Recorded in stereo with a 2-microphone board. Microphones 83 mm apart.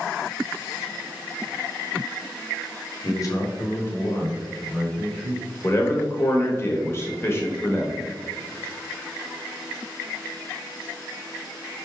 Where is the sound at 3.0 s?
50° left (ahead or behind), 1.3 m; by 5.5 s centre (ahead or behind), 2.5 m.